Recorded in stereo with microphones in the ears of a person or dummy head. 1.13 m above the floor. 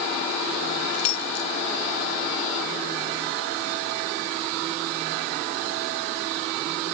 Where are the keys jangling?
90° left.